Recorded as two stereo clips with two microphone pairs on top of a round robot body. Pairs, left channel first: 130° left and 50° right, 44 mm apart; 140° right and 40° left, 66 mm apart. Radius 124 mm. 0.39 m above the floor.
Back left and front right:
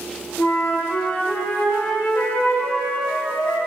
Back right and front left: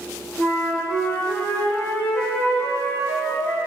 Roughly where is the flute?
Behind.